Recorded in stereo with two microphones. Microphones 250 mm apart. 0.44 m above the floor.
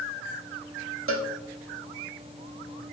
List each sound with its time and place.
1.1 s a cowbell: 60° right (ahead or behind), 0.7 m